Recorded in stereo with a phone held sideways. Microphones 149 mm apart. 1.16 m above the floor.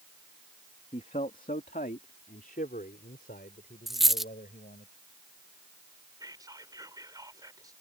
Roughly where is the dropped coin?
Centre.